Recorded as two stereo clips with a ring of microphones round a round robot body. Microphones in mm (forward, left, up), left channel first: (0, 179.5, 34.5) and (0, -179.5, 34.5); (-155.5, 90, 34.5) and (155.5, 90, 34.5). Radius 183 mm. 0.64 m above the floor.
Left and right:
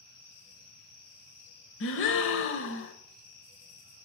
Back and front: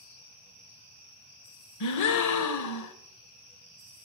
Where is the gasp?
150° left, 1.0 m.